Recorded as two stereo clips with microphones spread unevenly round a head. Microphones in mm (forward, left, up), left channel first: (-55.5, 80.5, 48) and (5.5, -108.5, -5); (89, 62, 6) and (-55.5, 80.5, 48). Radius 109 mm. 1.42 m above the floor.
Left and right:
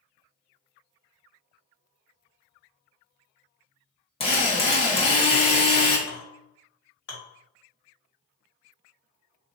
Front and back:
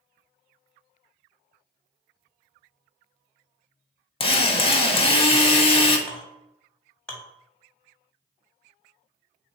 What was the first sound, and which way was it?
A drill, 50° left.